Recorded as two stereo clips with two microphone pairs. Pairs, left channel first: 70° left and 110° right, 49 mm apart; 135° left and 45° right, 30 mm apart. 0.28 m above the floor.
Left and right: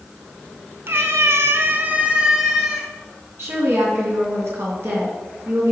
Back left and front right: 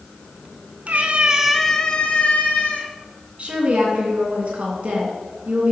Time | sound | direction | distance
0.9 | a cat meowing | 75° right | 1.1 m
3.4 | a woman speaking | 90° right | 3 m